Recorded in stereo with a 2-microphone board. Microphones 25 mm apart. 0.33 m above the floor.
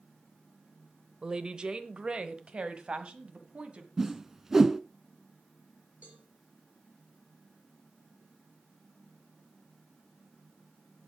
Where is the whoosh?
15° right (ahead or behind), 0.5 m.